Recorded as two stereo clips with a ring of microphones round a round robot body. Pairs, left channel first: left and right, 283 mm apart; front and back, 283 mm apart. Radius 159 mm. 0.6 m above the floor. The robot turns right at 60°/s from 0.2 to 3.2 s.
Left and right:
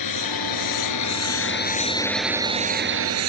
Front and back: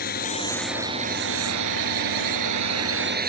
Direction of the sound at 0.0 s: 65° left.